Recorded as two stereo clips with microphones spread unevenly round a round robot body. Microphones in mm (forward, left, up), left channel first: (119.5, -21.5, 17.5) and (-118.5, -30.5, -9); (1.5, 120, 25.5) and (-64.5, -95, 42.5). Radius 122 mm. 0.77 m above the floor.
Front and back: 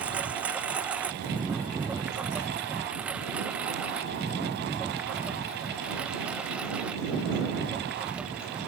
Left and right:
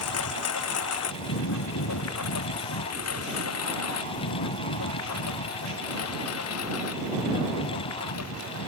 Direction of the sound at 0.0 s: 95° left.